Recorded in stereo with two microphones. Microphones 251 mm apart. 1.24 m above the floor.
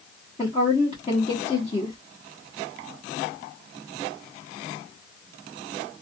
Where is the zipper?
I don't hear a zipper.